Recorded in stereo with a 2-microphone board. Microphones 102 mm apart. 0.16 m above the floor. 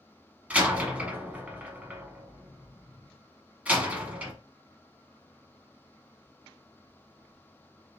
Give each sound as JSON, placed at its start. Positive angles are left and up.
{"t": 0.5, "sound": "a door slam", "side_deg": -15, "distance_m": 0.9}